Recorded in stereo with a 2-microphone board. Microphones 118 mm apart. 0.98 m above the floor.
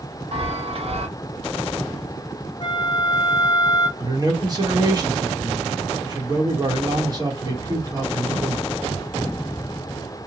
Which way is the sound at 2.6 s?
35° left (ahead or behind).